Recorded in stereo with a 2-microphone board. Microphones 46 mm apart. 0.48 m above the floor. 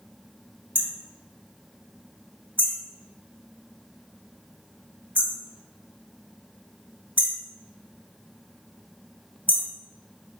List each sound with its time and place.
0.8 s hammering: 50° right (ahead or behind), 1.9 m